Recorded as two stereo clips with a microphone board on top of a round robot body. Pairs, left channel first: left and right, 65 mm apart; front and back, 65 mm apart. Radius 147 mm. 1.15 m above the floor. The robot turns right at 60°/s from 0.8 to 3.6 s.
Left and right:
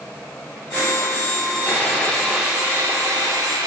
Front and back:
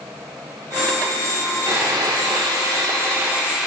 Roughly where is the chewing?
I don't hear chewing.